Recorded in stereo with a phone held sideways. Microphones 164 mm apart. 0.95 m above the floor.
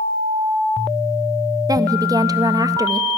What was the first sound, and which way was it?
A woman speaking, 25° right (ahead or behind).